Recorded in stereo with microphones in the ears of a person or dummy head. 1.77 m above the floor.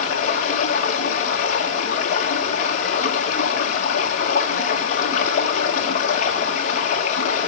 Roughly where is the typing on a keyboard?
I don't hear typing on a keyboard.